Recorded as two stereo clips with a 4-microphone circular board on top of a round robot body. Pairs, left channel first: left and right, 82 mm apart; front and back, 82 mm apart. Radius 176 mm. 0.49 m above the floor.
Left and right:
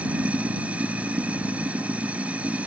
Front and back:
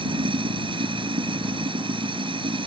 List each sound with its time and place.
0.0 s running water: 165° right